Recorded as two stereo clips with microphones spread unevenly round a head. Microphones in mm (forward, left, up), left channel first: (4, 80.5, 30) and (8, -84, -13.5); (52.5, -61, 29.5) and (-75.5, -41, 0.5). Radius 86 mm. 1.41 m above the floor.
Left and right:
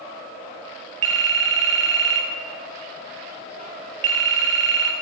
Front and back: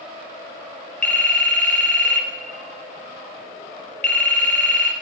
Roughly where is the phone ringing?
Right.